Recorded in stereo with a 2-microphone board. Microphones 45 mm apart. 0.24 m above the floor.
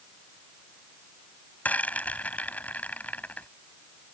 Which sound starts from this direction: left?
A rattle, at 1.6 s.